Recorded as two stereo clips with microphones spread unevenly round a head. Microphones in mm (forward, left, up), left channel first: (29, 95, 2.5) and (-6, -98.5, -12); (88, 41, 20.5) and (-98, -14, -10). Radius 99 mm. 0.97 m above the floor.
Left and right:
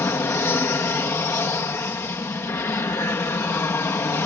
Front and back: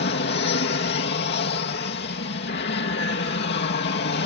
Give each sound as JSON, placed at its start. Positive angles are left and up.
{"t": 0.0, "sound": "an aircraft", "azimuth_deg": 5}